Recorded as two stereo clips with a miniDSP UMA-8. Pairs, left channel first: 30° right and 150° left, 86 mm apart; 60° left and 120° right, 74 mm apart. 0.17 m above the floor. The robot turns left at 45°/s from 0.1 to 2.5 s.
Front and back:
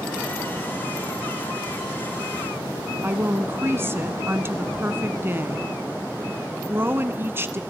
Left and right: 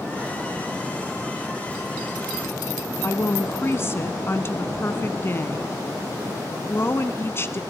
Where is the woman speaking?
100° left, 1.3 m.